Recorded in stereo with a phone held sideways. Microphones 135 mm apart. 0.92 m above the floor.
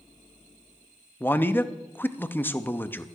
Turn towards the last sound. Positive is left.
turn(degrees=15)  # may be behind; listen again after turning